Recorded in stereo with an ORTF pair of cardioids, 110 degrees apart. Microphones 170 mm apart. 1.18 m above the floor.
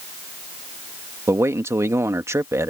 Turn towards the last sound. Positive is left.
turn(degrees=-15)